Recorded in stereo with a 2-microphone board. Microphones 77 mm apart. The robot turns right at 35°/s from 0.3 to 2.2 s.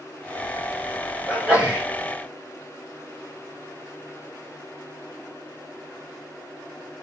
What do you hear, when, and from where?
1.3 s a sneeze: 10° right (ahead or behind), 1.5 m; by 1.9 s 15° right (ahead or behind), 1.5 m